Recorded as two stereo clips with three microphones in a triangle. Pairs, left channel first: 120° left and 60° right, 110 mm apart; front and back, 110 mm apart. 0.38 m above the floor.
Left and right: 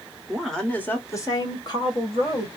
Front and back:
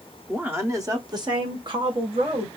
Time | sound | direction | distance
0.3 | a woman speaking | 135° right | 0.8 m